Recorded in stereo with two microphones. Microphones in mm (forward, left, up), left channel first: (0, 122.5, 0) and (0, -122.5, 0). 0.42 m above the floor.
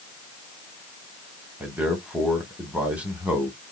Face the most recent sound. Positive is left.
turn(degrees=-5)  # may be behind; listen again after turning